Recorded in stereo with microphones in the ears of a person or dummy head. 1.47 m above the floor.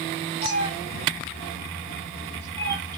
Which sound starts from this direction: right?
A cat meowing, at 0.4 s.